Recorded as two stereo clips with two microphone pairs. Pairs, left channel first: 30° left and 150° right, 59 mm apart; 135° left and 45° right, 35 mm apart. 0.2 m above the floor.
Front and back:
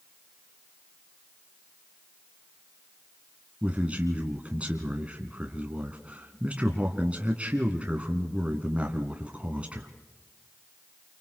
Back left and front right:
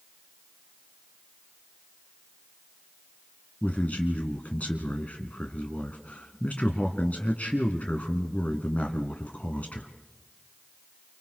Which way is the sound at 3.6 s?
150° left.